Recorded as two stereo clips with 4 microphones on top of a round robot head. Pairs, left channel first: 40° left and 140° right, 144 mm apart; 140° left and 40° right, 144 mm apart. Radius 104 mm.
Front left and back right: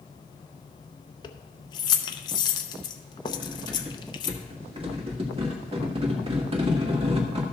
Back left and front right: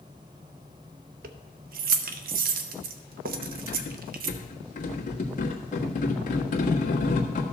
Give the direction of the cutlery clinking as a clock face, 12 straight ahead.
6 o'clock.